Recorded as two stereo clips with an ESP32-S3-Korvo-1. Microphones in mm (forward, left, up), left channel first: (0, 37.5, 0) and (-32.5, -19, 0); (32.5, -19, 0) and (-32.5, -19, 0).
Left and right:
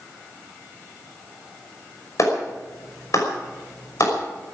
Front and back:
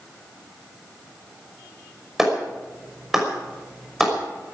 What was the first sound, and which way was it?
A clap, 95° left.